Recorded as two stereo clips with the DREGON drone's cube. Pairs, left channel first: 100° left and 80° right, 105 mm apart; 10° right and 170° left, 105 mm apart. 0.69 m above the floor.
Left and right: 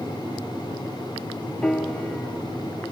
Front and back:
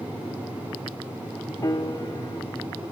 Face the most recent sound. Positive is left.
turn(degrees=20)